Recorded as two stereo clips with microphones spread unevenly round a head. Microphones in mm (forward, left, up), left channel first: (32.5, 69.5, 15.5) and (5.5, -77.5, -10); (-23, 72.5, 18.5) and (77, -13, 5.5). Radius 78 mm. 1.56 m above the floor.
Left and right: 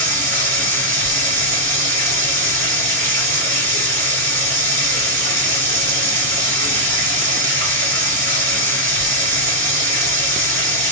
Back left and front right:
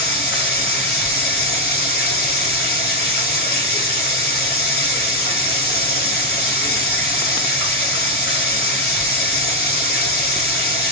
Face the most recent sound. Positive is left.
turn(degrees=-145)